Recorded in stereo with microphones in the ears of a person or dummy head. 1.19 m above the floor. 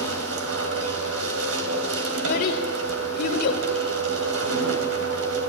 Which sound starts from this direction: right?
A machine running, at 0.0 s.